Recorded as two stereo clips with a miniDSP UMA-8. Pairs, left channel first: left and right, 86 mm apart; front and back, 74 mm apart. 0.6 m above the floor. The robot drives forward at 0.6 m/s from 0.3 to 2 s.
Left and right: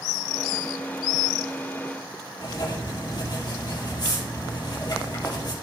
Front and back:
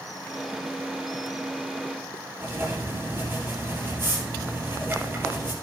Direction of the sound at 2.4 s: 125° left.